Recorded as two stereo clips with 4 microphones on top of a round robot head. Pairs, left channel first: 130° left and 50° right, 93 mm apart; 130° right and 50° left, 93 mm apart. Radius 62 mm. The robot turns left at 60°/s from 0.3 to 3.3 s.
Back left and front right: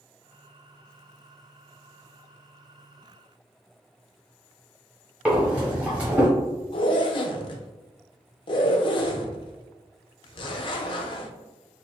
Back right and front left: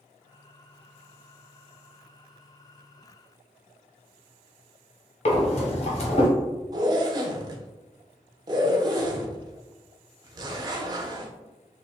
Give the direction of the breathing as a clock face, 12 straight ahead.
4 o'clock.